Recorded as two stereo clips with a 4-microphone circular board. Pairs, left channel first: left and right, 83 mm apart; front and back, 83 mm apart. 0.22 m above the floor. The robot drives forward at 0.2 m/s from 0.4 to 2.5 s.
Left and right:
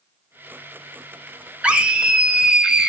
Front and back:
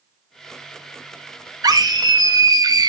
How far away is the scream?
About 1.6 m.